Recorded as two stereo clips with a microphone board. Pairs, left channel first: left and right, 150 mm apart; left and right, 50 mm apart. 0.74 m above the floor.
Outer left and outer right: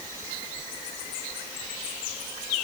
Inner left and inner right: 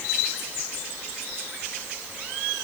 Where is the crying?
I don't hear crying.